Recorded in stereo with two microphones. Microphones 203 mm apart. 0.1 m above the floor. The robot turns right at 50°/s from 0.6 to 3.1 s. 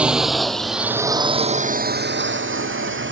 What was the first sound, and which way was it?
A drone, 5° right (ahead or behind).